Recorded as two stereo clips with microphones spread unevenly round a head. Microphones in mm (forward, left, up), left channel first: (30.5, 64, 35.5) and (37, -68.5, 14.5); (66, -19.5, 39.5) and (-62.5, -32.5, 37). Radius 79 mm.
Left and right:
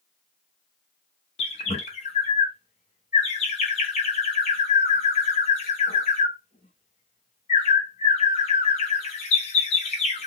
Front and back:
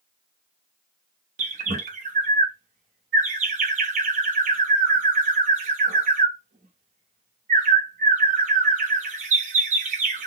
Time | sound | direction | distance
1.4 | a bird | 145° left | 0.9 m